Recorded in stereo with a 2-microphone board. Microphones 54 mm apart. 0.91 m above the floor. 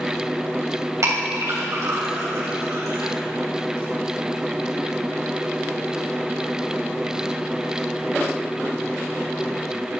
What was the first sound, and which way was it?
A clink, 80° right.